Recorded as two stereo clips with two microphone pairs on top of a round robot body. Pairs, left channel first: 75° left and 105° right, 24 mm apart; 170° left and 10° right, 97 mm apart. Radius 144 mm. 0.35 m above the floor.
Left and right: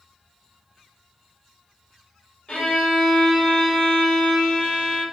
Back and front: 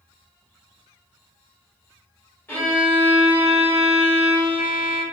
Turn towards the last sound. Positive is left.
turn(degrees=100)